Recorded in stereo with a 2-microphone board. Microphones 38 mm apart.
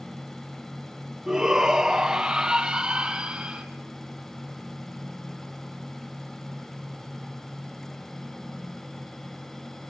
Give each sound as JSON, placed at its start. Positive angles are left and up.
{"t": 1.3, "sound": "a shout", "side_deg": -20, "distance_m": 3.5}